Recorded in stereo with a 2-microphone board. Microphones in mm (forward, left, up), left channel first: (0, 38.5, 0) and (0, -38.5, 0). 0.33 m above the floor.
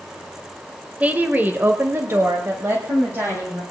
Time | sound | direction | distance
1.0 | a woman speaking | 20° right (ahead or behind) | 1.1 m